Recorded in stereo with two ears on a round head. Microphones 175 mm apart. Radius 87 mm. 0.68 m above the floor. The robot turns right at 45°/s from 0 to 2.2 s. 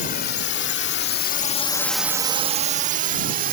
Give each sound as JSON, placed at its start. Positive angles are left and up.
{"t": 0.0, "sound": "a drone", "side_deg": 40}